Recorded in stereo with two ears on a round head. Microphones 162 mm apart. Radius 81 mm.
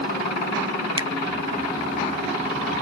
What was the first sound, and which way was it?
A finger snap, 25° right (ahead or behind).